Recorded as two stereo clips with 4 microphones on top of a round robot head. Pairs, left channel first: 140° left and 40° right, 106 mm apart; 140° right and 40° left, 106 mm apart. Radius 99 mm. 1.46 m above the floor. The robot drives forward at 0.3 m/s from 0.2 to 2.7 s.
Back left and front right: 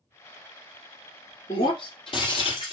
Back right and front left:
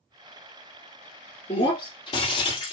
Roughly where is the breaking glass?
Behind.